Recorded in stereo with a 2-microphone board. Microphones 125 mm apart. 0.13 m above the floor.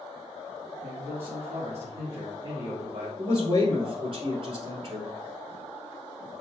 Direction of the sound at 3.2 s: 45° right (ahead or behind).